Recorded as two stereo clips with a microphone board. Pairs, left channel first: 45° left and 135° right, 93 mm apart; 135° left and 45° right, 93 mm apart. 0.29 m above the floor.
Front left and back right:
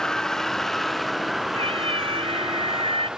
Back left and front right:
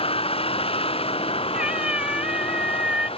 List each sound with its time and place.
0.0 s a vehicle: 130° left; by 3.2 s 140° left
1.5 s a cat meowing: 125° right